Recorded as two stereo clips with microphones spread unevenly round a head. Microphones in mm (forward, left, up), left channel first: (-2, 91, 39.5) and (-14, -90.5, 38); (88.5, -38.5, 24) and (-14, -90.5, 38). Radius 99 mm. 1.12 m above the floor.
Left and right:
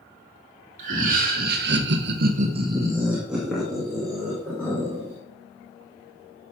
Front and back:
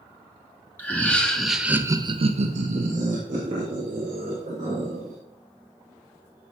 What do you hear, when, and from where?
0.8 s laughter: 45° right, 2.5 m; by 5.2 s 165° left, 4.5 m